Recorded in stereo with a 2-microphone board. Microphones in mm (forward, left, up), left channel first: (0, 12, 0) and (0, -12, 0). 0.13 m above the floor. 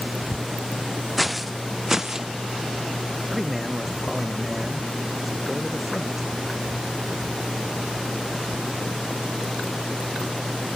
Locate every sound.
1.2 s footsteps: 5° right (ahead or behind); by 2.3 s 25° right (ahead or behind)
3.3 s a man speaking: 10° right (ahead or behind)